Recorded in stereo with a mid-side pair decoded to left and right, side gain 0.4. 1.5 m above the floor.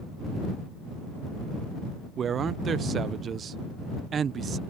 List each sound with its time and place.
2.2 s a man speaking: 55° right